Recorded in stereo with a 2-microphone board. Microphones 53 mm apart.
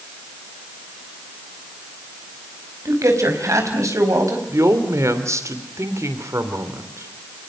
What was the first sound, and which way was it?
A man speaking, 80° right.